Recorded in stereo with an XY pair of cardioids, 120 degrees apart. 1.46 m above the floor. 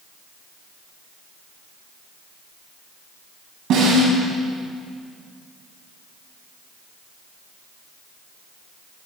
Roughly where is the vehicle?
No vehicle in this recording.